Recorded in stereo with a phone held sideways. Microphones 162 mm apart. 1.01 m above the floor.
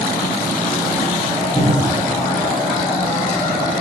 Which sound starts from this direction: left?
A cupboard door, at 1.6 s.